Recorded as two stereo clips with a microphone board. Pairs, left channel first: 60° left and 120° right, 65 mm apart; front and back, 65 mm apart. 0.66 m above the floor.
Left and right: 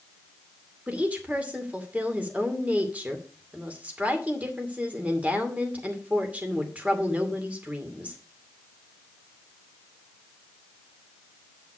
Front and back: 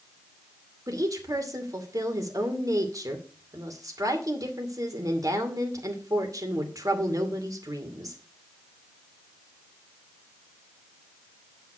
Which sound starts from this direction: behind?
A woman speaking, at 0.9 s.